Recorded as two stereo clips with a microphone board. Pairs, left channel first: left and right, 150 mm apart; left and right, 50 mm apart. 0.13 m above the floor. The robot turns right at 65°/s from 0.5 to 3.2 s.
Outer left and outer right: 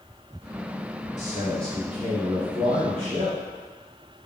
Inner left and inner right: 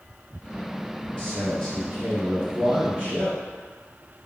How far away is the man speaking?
About 1.6 m.